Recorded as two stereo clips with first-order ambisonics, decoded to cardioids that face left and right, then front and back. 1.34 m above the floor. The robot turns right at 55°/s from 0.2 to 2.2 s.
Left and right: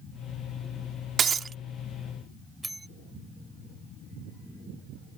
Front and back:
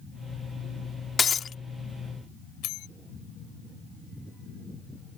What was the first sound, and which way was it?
Breaking glass, 55° right.